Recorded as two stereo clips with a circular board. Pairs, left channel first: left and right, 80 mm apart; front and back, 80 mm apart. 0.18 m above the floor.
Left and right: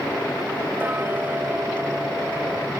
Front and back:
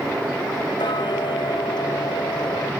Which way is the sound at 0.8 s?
25° right.